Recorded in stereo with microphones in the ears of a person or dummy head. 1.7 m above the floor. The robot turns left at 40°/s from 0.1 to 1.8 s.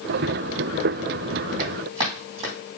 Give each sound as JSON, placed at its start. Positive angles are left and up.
{"t": 1.6, "sound": "running footsteps", "side_deg": -40, "distance_m": 4.5}